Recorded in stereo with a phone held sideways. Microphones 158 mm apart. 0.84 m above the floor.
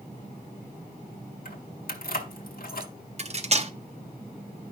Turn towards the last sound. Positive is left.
turn(degrees=-45)  # may be behind; listen again after turning